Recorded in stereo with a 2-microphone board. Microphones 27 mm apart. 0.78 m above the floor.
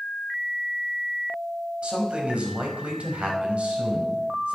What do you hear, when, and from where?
1.8 s a man speaking: 55° right (ahead or behind), 5 m; by 4.6 s 70° right (ahead or behind), 4.5 m